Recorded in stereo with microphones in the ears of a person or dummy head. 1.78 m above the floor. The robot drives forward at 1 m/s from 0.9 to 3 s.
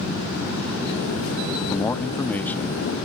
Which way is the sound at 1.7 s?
15° left (ahead or behind).